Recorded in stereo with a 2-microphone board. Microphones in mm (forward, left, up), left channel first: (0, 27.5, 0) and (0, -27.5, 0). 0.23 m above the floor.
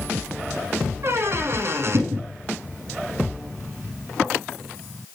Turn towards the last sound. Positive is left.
turn(degrees=-55)  # may be behind; listen again after turning